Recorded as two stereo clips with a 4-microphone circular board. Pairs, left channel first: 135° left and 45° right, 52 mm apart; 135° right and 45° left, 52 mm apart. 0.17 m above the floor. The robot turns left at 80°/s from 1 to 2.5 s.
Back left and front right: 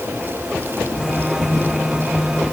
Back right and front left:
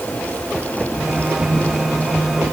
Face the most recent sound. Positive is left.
No sound to turn to.